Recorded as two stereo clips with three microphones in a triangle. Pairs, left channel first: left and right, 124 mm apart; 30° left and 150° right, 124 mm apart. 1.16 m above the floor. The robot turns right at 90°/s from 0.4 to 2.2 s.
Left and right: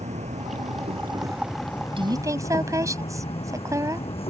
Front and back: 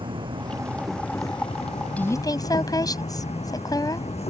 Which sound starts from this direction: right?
An insect, at 0.0 s.